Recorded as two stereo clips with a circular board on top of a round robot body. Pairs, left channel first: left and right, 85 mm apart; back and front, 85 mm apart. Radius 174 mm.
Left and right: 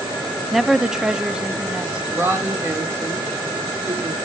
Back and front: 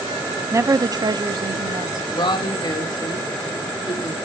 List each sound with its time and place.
0.5 s a woman speaking: straight ahead, 0.8 m; by 2.0 s 15° right, 1.4 m
2.1 s a woman speaking: 150° right, 3.5 m